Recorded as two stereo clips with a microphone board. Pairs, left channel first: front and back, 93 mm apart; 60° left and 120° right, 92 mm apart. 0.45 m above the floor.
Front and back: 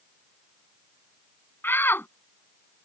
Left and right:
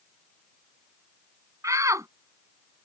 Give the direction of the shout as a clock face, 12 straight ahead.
2 o'clock.